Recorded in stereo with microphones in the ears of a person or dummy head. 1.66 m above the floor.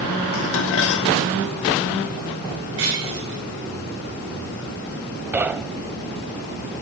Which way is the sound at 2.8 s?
65° right (ahead or behind).